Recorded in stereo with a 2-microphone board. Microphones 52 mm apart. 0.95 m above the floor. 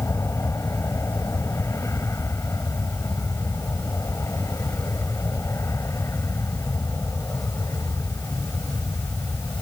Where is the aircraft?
75° left (ahead or behind).